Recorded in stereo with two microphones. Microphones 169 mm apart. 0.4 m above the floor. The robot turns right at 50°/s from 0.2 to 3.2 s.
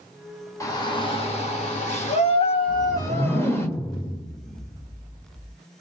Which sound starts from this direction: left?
A whoosh, at 2.7 s.